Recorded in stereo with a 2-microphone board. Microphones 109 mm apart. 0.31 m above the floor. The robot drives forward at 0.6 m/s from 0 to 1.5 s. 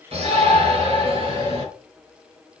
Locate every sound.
0.1 s a shout: 55° right (ahead or behind), 4.5 m; by 1.6 s 45° right (ahead or behind), 5 m